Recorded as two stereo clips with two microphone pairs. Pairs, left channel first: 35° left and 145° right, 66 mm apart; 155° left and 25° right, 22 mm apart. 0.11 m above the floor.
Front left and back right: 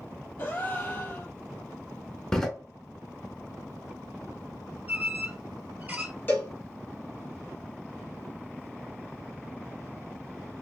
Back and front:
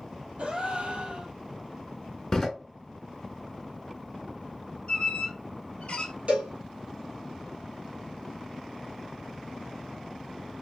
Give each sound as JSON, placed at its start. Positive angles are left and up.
{"t": 0.4, "sound": "a gasp", "azimuth_deg": -20, "distance_m": 1.0}
{"t": 2.3, "sound": "a door slam", "azimuth_deg": 100, "distance_m": 0.8}
{"t": 4.9, "sound": "a squeak", "azimuth_deg": 160, "distance_m": 0.6}
{"t": 6.3, "sound": "a cowbell", "azimuth_deg": -25, "distance_m": 1.5}